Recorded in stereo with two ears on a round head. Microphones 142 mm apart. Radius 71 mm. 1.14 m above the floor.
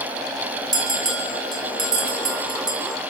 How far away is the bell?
About 5.5 m.